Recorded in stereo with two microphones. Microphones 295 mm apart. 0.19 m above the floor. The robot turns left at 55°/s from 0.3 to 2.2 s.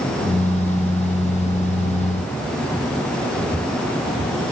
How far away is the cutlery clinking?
I don't hear cutlery clinking.